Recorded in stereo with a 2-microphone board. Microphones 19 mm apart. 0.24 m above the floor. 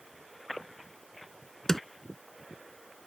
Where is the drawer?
30° left (ahead or behind).